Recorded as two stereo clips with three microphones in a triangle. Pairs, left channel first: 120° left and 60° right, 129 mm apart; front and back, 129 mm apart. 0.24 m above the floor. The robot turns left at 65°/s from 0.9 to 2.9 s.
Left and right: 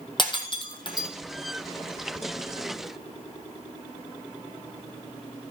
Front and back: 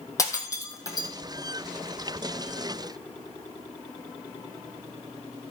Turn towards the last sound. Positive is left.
turn(degrees=-65)